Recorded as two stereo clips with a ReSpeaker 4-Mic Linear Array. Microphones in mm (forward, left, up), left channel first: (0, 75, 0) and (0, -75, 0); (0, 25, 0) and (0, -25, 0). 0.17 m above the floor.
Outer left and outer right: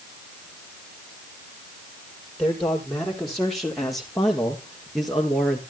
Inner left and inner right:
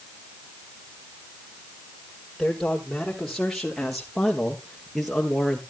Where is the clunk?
No clunk in this recording.